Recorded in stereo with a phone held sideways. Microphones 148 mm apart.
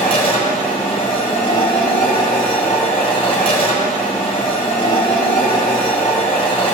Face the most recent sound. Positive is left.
turn(degrees=40)  # may be behind; listen again after turning